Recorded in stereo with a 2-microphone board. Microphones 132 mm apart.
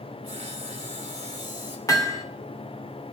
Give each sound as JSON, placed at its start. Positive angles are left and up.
{"t": 0.2, "sound": "sawing", "side_deg": -45, "distance_m": 5.5}
{"t": 1.9, "sound": "hammering", "side_deg": 25, "distance_m": 2.5}